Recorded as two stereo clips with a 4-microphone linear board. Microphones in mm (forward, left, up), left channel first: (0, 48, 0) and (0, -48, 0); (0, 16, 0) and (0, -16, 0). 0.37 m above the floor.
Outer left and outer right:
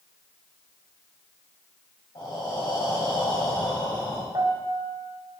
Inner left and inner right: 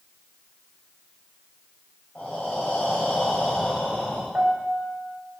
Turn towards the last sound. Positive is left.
turn(degrees=-50)  # may be behind; listen again after turning